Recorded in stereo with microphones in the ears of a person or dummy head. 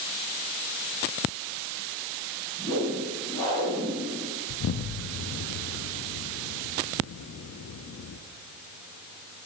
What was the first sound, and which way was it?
A whoosh, 30° left (ahead or behind).